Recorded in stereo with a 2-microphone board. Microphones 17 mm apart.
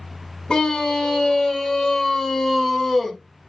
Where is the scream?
55° left (ahead or behind), 2.5 m; by 3.2 s 15° left (ahead or behind), 1.8 m.